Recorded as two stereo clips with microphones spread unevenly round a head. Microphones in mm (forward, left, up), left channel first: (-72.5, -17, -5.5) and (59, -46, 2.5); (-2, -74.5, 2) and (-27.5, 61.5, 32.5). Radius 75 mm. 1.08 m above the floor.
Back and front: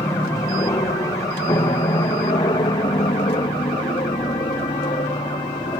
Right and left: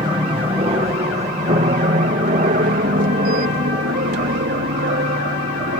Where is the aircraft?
135° left; by 5.8 s 105° left.